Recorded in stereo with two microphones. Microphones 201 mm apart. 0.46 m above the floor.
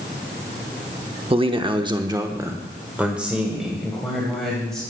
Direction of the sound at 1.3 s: 25° right (ahead or behind).